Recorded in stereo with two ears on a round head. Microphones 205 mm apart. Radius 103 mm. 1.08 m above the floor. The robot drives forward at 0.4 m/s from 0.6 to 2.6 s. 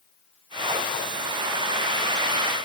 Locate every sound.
Only background noise.